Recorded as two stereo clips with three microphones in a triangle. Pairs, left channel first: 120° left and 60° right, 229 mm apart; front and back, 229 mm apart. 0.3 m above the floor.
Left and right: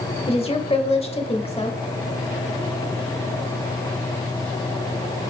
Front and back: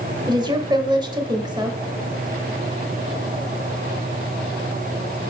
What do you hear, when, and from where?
0.3 s a woman speaking: 135° left, 0.9 m